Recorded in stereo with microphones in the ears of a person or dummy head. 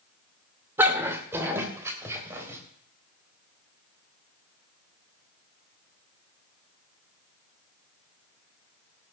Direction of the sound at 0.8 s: 15° right (ahead or behind).